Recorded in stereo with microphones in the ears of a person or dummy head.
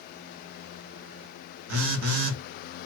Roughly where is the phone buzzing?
Right.